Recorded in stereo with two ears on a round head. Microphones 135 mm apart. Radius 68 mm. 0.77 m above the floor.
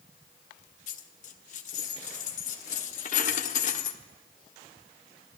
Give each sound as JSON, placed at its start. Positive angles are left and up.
{"t": 0.9, "sound": "a dropped coin", "side_deg": 55, "distance_m": 0.8}